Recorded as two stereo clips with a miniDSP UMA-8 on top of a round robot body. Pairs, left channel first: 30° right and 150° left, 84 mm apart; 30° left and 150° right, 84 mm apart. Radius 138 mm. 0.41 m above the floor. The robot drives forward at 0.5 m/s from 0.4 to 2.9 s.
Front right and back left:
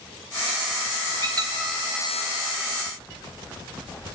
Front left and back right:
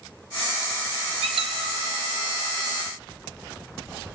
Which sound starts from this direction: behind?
A squeak, at 1.2 s.